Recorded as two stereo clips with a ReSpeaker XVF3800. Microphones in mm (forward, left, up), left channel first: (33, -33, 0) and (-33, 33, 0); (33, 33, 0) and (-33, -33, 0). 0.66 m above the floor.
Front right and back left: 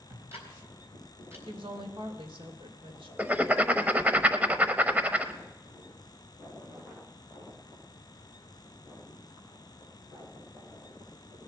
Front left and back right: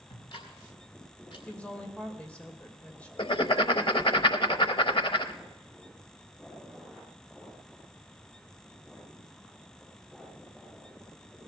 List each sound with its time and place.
0.1 s ticking: 75° left, 3.5 m
1.5 s a woman speaking: 120° left, 2.5 m
3.2 s writing: 60° left, 0.8 m